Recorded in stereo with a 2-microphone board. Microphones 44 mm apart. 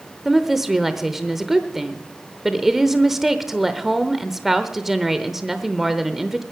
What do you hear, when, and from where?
0.2 s a woman speaking: 5° right (ahead or behind), 0.8 m